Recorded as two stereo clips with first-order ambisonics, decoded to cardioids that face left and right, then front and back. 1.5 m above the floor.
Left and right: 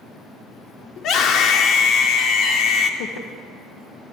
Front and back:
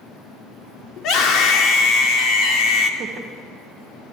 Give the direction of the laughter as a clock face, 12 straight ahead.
8 o'clock.